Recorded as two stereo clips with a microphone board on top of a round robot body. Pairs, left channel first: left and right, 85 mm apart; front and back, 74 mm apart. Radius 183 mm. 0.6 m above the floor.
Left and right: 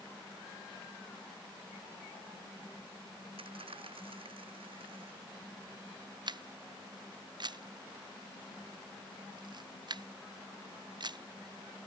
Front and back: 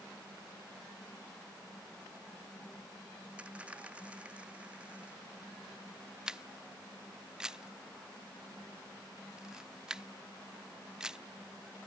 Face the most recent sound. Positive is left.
turn(degrees=-100)